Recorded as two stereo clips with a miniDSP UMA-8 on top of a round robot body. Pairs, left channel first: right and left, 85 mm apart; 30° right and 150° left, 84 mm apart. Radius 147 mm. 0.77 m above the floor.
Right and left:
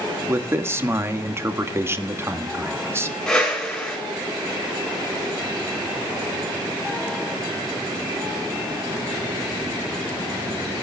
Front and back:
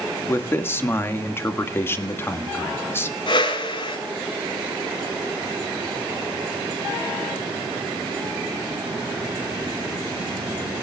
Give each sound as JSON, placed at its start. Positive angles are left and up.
{"t": 0.3, "sound": "a man speaking", "azimuth_deg": 30, "distance_m": 2.0}
{"t": 3.3, "sound": "a whoosh", "azimuth_deg": -5, "distance_m": 7.0}